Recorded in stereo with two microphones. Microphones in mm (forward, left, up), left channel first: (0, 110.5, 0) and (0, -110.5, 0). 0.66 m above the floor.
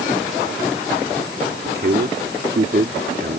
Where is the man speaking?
50° right (ahead or behind).